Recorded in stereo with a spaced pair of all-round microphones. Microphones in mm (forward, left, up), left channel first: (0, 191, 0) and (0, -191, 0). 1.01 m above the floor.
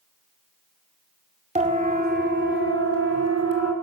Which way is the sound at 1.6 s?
15° right (ahead or behind).